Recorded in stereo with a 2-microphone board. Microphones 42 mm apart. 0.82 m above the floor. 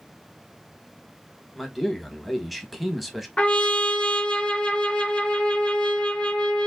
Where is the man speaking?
Centre (ahead or behind), 0.9 m.